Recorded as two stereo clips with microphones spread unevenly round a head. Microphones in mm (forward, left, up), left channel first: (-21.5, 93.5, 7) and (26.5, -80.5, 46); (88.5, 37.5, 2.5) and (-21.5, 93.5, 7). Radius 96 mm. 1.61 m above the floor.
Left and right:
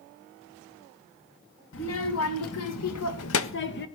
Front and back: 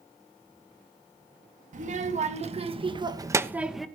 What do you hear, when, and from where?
1.7 s a child speaking: 130° left, 2 m; by 3.9 s 60° left, 1.3 m